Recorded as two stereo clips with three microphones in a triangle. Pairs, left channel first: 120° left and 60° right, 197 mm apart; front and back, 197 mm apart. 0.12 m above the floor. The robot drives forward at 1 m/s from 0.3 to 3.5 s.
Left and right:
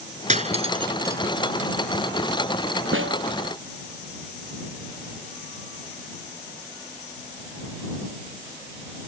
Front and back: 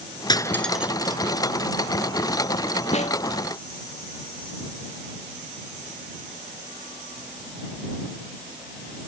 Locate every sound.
0.3 s cutlery clinking: 50° right; by 1.2 s 130° right
2.9 s a snare drum: 55° right; by 3.2 s 60° right